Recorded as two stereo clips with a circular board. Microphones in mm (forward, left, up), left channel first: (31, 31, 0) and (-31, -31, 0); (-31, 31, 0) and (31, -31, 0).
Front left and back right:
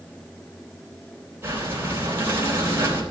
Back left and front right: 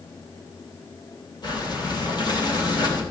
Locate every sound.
1.4 s breathing: 165° left, 3.5 m